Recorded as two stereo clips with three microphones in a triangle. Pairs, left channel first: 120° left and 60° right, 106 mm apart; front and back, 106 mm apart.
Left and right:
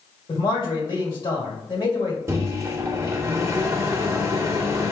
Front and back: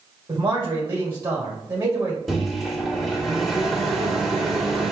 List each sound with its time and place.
0.3 s a man speaking: 130° left, 1.7 m
2.3 s a microwave: 90° right, 0.8 m